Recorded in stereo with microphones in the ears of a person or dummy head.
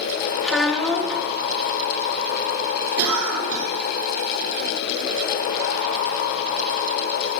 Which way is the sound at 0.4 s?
5° right (ahead or behind).